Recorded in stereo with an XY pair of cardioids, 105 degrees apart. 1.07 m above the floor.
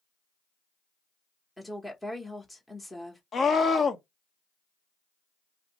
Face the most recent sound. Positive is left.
turn(degrees=45)